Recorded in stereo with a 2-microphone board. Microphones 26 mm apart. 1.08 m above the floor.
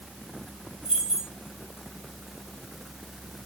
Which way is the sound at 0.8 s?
35° right (ahead or behind).